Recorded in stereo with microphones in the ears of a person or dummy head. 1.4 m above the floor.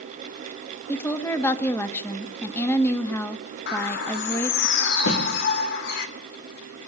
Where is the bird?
65° left (ahead or behind), 2.5 m.